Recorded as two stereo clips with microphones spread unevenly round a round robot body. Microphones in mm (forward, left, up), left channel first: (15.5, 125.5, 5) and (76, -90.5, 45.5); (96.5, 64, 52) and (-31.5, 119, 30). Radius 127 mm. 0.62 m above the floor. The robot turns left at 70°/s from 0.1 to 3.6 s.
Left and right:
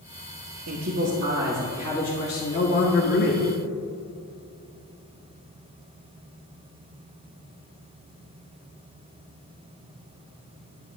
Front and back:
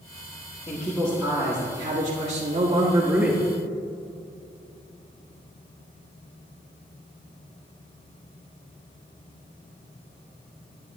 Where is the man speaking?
85° right, 1.3 m; by 3.4 s 80° left, 1.3 m.